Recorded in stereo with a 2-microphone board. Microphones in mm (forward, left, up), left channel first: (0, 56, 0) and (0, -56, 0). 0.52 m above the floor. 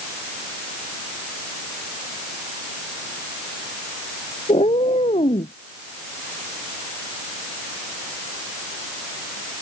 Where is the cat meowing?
70° left (ahead or behind).